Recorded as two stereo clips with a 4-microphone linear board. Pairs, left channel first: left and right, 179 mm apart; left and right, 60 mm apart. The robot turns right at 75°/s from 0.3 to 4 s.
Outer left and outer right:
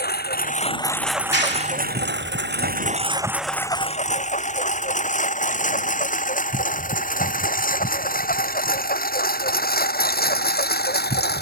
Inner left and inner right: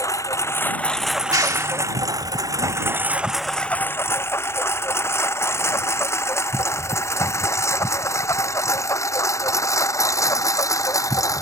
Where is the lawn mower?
65° left (ahead or behind).